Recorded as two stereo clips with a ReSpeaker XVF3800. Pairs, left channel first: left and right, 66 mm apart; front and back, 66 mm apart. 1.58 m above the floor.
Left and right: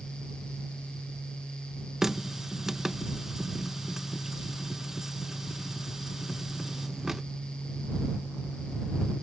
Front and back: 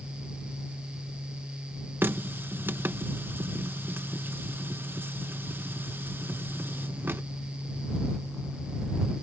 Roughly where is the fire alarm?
I don't hear a fire alarm.